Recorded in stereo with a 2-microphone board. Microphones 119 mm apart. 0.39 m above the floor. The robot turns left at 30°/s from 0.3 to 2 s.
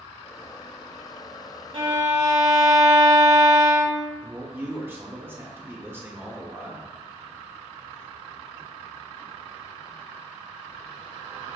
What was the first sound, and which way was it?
A violin, 50° right (ahead or behind).